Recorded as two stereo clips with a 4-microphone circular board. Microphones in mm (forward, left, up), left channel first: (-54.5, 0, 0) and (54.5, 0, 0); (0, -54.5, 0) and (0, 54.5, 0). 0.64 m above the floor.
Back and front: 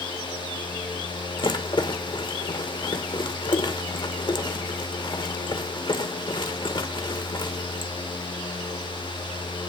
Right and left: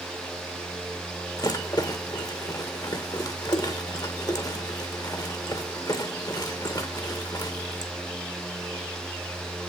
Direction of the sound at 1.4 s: 140° right.